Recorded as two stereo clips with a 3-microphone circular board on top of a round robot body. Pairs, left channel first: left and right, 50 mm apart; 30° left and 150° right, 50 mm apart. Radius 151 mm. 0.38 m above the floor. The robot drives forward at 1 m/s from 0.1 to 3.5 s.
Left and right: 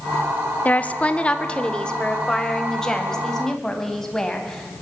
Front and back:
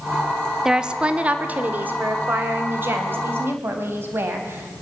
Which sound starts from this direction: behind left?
A woman speaking, at 0.7 s.